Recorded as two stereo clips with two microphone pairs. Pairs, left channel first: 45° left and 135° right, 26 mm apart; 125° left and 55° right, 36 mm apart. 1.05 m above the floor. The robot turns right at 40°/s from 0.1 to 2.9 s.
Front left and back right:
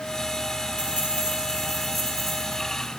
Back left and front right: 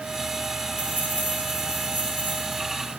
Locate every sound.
0.8 s keys jangling: 95° right, 9 m; by 2.6 s 25° right, 9 m